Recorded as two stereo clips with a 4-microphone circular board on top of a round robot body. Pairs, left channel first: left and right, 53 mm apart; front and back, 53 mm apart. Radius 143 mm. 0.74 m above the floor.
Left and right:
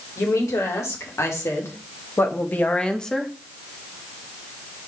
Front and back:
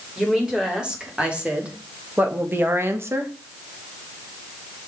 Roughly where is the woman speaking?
Left.